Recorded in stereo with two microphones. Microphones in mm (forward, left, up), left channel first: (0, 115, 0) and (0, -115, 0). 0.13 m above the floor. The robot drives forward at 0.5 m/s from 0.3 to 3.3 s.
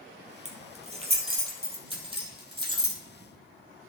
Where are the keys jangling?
30° right (ahead or behind), 2.5 m; by 3.0 s 20° right (ahead or behind), 3.5 m.